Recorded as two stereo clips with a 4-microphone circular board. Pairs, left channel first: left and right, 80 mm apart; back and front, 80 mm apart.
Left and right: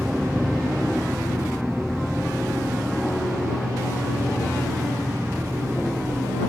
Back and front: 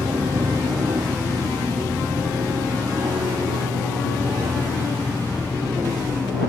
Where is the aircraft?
10° right; by 6.5 s 35° left.